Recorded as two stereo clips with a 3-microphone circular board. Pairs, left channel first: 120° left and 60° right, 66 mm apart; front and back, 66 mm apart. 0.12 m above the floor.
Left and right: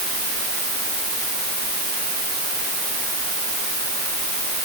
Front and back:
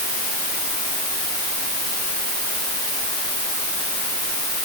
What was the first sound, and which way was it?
Only background noise.